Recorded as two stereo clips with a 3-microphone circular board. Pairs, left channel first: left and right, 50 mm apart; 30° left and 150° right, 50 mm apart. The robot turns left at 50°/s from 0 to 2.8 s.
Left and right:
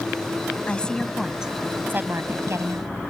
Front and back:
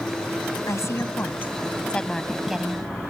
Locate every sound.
0.7 s a woman speaking: 25° left; by 2.9 s 80° right